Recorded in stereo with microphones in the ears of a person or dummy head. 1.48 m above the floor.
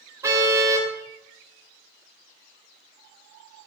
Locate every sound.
0.2 s a car horn: 15° right (ahead or behind), 3 m